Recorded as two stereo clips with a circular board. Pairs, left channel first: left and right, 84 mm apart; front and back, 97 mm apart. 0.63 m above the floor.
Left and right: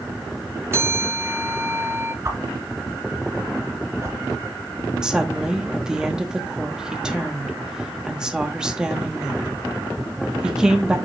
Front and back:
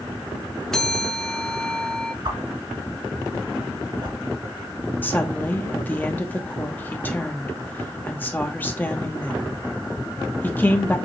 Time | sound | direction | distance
0.7 | a bell | 75° right | 0.5 m
2.2 | a whoosh | 140° right | 1.4 m
5.0 | a woman speaking | 25° right | 0.9 m